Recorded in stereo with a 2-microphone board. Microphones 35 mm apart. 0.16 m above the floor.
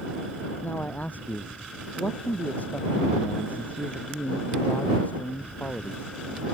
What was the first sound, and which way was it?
A man speaking, 50° left (ahead or behind).